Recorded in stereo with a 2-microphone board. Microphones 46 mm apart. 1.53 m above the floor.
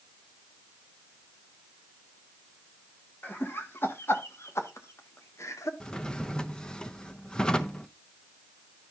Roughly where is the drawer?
Centre.